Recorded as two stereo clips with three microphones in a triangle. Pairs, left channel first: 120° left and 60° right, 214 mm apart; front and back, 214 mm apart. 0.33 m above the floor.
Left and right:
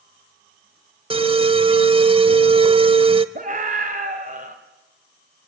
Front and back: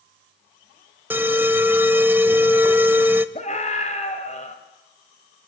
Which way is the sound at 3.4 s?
35° right.